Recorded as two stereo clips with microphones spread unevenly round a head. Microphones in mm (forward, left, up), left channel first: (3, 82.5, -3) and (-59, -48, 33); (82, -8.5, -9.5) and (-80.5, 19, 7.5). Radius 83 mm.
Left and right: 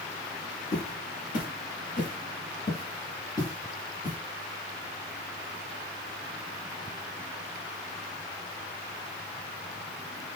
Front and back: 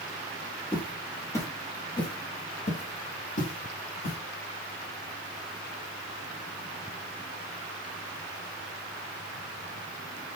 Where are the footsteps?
75° left, 1.6 m; by 4.2 s 25° right, 1.7 m.